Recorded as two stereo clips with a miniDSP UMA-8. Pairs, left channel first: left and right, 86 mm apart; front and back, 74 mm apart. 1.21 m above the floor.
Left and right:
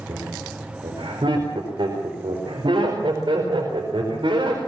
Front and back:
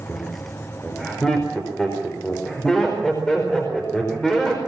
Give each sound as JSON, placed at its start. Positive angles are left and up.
{"t": 0.1, "sound": "laughter", "azimuth_deg": -80, "distance_m": 4.5}